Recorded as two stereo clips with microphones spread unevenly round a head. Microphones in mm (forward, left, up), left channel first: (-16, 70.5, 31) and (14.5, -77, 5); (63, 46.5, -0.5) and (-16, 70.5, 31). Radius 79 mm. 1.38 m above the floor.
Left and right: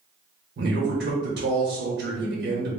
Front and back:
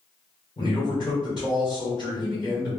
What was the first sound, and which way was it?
A man speaking, 70° right.